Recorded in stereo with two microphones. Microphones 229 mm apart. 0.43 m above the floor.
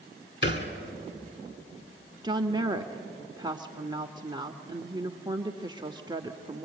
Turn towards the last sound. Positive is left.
turn(degrees=-20)  # may be behind; listen again after turning